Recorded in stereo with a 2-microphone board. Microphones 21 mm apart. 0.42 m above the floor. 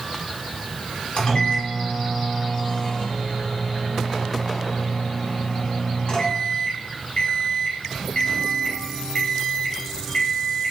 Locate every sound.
1.2 s a microwave: 50° left (ahead or behind), 1.0 m